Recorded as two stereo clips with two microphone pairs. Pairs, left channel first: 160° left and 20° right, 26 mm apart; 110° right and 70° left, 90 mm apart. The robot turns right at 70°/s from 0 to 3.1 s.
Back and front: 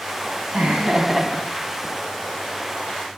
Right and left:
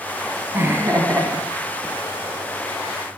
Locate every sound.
0.5 s laughter: 10° left, 1.4 m; by 1.9 s 110° left, 1.4 m